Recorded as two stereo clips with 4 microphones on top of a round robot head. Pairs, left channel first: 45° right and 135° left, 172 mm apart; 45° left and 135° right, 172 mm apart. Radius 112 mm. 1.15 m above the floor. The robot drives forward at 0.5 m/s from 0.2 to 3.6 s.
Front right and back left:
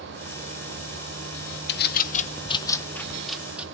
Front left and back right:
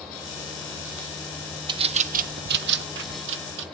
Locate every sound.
1.7 s a bird: 70° right, 0.7 m; by 3.6 s 140° right, 1.0 m